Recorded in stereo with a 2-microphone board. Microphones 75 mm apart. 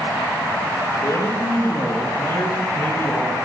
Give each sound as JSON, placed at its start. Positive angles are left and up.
{"t": 1.0, "sound": "a man speaking", "side_deg": 60, "distance_m": 4.0}